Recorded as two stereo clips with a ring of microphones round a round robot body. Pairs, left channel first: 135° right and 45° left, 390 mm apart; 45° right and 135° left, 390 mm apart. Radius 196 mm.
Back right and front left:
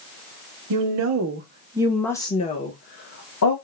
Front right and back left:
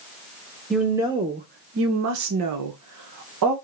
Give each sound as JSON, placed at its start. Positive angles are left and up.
{"t": 0.7, "sound": "a woman speaking", "azimuth_deg": 45, "distance_m": 0.8}